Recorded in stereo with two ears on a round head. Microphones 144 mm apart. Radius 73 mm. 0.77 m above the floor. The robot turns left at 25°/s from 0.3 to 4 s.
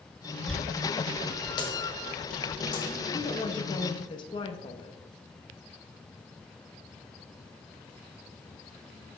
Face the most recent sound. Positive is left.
turn(degrees=30)  # may be behind; listen again after turning